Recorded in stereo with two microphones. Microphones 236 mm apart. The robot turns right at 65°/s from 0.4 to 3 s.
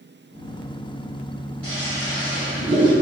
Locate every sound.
1.6 s a toilet flushing: 90° right, 1.7 m; by 2.9 s 5° right, 1.7 m